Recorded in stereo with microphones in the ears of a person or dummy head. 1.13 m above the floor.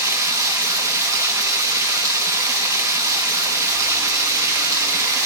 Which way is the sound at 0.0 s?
15° right (ahead or behind).